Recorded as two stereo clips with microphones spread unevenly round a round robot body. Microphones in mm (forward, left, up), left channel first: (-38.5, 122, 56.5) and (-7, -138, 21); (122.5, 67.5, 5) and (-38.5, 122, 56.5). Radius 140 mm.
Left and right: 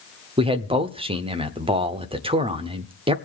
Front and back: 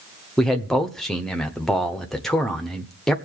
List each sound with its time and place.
0.4 s a man speaking: 65° right, 1.1 m